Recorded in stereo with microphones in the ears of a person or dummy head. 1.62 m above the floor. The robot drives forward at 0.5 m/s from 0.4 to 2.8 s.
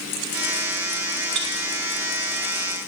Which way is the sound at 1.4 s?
65° right (ahead or behind).